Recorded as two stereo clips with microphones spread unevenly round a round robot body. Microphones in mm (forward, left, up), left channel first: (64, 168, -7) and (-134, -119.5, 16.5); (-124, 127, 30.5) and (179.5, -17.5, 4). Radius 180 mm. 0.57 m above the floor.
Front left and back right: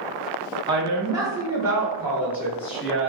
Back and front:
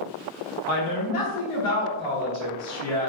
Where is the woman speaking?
160° left, 0.8 m; by 3.1 s 150° left, 1.9 m.